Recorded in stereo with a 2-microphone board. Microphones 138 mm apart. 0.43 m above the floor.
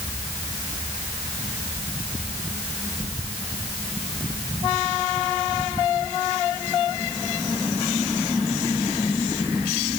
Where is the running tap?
No running tap in this recording.